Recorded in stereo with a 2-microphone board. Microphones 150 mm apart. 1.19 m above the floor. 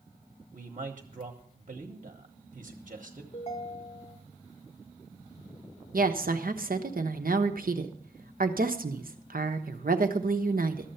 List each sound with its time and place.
0.5 s a man speaking: 55° right (ahead or behind), 1.2 m
3.3 s a ringtone: 45° left (ahead or behind), 2.0 m
5.9 s a woman speaking: 75° right (ahead or behind), 1.0 m